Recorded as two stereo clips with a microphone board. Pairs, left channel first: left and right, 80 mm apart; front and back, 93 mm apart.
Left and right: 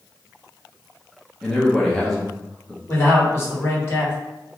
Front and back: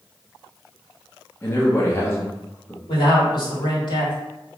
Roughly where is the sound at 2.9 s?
Ahead left.